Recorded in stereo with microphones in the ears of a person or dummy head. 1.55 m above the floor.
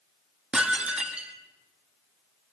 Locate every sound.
0.5 s dishes clattering: 5° right (ahead or behind), 1.9 m